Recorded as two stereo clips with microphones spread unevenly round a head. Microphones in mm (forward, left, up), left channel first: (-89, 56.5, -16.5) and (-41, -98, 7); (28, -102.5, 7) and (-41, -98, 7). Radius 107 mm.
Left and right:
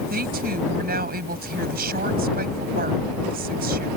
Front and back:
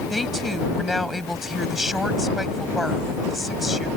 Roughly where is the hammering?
I don't hear hammering.